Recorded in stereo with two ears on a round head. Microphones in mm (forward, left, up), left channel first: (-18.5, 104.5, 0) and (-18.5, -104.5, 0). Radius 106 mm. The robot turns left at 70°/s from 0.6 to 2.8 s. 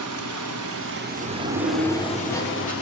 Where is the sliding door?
105° right, 2.5 m; by 2.7 s 140° left, 2.5 m.